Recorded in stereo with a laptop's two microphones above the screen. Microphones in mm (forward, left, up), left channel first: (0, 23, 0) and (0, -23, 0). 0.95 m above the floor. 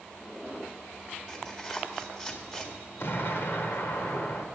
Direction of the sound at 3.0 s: 65° left (ahead or behind).